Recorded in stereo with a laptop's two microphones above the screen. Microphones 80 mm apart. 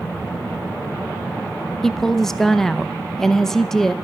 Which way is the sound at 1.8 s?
5° left (ahead or behind).